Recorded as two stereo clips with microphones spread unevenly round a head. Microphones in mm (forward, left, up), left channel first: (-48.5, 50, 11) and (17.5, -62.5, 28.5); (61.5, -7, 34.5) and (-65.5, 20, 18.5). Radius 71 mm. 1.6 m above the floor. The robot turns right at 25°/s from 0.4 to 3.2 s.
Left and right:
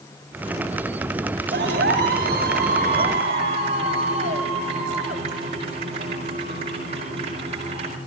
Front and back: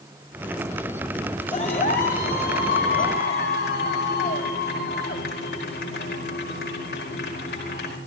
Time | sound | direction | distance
1.5 | a clap | 50° right | 5 m